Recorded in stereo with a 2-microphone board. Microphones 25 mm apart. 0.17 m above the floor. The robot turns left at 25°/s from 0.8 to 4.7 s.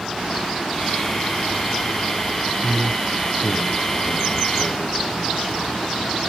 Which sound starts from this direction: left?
A man speaking, at 2.6 s.